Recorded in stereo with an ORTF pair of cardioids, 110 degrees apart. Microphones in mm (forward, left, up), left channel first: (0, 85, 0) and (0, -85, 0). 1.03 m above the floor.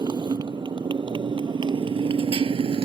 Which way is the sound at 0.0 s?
25° right.